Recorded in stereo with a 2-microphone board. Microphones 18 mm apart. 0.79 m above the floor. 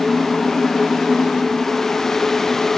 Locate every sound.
Only background noise.